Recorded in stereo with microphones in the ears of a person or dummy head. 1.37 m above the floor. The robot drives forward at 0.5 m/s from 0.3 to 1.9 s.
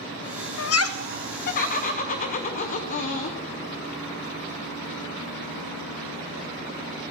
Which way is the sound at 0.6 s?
70° left (ahead or behind).